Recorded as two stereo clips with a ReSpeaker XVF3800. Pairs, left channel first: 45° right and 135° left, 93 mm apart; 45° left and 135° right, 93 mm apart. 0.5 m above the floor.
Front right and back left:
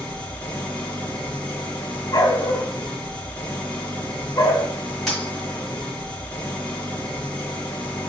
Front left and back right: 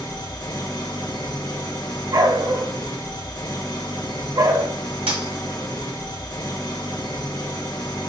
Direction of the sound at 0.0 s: 30° left.